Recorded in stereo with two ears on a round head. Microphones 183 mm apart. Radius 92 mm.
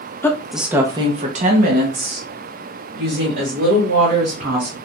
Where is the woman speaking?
10° left (ahead or behind), 0.6 m; by 4.8 s 55° right (ahead or behind), 2 m.